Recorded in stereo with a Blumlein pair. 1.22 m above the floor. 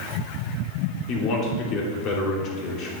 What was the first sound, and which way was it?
A man speaking, 35° left.